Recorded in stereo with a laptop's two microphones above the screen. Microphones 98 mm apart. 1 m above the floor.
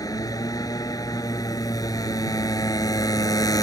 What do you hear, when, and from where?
0.0 s a motorcycle: 35° left (ahead or behind)